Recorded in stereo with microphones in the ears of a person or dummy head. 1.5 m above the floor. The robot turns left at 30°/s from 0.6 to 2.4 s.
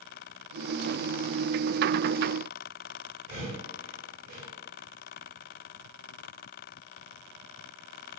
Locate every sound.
3.3 s breathing: 50° right (ahead or behind), 1.7 m